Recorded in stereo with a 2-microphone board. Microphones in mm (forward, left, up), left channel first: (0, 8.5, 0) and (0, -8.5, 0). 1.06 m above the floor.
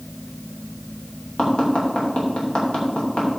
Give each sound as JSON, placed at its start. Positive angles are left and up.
{"t": 1.4, "sound": "tapping", "side_deg": 70, "distance_m": 3.0}